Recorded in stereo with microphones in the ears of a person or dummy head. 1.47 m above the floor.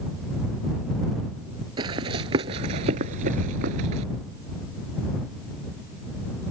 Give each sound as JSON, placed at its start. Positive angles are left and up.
{"t": 1.8, "sound": "running footsteps", "side_deg": -20}